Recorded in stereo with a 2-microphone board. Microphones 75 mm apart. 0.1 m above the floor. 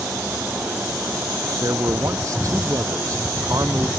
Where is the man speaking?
45° right (ahead or behind).